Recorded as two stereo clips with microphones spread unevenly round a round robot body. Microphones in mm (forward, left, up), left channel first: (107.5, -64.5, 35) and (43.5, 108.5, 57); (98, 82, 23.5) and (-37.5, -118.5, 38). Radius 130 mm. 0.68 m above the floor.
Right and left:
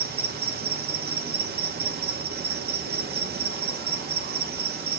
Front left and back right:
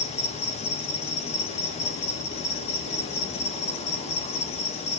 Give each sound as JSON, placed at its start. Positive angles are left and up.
{"t": 0.0, "sound": "an insect", "azimuth_deg": 105, "distance_m": 1.1}